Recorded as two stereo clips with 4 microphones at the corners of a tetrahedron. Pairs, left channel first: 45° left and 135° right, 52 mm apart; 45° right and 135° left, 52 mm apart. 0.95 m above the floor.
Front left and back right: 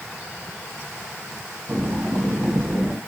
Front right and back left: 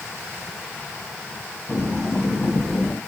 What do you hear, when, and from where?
1.7 s breathing: 125° right, 1.9 m